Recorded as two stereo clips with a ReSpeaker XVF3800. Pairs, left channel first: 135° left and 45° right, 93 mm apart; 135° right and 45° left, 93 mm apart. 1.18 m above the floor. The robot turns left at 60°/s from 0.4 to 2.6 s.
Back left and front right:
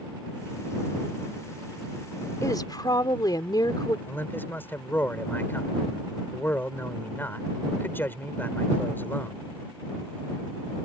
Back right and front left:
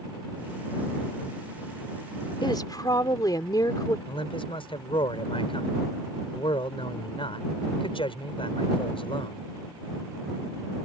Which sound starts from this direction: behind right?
A man speaking, at 4.1 s.